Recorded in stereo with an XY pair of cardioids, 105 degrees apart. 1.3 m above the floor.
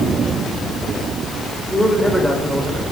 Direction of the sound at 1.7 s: Straight ahead.